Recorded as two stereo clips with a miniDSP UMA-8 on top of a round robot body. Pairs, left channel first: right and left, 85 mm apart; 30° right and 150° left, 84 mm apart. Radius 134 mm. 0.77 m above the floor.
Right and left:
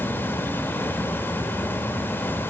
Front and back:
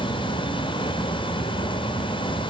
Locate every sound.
0.0 s an insect: 25° right, 1.3 m